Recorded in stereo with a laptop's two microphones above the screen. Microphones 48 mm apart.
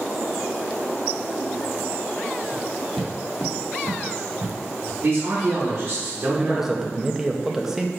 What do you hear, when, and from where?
2.5 s footsteps: 25° left (ahead or behind), 1.4 m; by 4.9 s 50° right (ahead or behind), 3 m
5.0 s a man speaking: 35° right (ahead or behind), 1.0 m
6.4 s a man speaking: 5° right (ahead or behind), 0.6 m